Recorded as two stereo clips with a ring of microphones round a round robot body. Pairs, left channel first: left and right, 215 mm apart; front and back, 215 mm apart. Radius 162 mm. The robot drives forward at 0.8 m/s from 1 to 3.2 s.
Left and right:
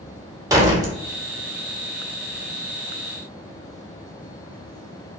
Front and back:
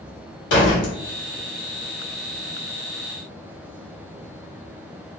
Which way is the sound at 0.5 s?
15° right.